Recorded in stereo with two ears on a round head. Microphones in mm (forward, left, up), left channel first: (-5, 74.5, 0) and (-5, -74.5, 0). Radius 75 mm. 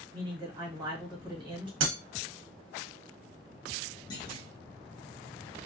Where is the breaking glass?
80° right, 0.8 m.